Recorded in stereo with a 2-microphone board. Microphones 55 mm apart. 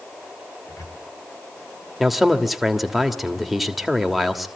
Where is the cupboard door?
75° left (ahead or behind), 5 m.